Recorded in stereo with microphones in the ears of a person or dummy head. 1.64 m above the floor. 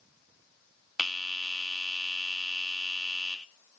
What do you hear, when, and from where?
1.0 s a bell: 5° right (ahead or behind), 0.8 m